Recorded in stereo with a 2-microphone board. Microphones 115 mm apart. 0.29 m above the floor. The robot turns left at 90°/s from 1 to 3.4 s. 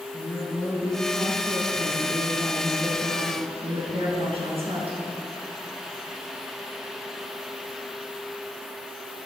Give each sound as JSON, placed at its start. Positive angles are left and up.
{"t": 0.1, "sound": "a woman speaking", "azimuth_deg": 150, "distance_m": 4.0}